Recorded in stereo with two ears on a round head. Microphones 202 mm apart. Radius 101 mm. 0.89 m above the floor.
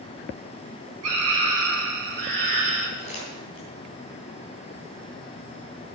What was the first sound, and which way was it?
A scream, 80° right.